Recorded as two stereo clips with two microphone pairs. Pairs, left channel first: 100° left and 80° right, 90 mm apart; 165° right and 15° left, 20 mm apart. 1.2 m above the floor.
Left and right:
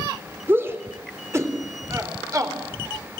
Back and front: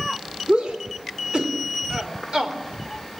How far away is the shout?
About 3.5 m.